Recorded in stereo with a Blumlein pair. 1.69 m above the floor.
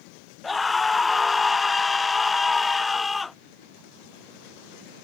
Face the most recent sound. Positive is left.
turn(degrees=10)